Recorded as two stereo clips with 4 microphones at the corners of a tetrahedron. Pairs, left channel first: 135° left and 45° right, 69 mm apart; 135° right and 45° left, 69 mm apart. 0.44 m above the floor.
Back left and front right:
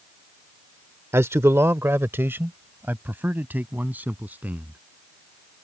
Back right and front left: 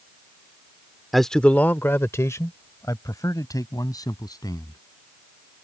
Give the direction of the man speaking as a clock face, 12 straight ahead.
1 o'clock.